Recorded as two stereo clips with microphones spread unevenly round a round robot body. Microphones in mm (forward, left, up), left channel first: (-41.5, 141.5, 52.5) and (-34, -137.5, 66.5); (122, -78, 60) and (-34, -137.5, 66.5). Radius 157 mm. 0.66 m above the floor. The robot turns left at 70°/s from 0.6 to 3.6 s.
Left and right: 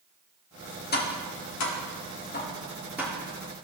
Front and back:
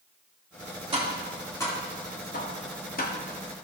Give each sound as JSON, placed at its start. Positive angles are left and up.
{"t": 0.9, "sound": "tapping", "azimuth_deg": 145, "distance_m": 1.5}